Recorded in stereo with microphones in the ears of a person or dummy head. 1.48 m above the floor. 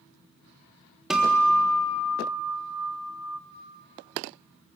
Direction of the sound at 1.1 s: 5° right (ahead or behind).